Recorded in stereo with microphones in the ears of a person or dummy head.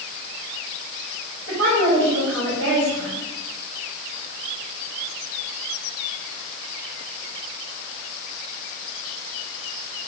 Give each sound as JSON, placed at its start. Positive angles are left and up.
{"t": 1.5, "sound": "a woman speaking", "side_deg": -80, "distance_m": 4.0}